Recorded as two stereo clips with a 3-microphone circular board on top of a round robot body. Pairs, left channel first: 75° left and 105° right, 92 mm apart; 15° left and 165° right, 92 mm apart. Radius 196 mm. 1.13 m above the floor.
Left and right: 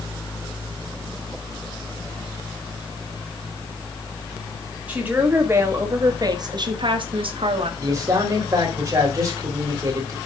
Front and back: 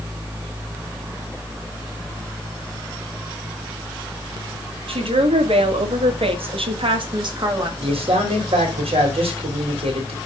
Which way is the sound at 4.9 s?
Straight behind.